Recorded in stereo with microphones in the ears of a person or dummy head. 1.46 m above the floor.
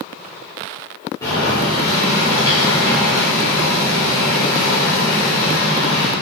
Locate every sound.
1.2 s boiling: 15° left (ahead or behind), 1.5 m